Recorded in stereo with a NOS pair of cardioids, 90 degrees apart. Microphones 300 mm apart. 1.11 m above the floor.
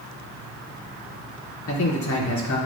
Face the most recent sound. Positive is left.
turn(degrees=65)